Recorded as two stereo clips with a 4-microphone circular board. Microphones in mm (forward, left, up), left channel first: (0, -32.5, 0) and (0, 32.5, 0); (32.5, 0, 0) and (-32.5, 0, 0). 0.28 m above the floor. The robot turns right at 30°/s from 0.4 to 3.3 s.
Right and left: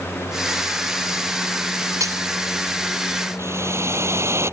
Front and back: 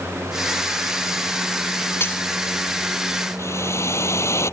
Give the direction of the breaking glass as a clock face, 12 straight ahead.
10 o'clock.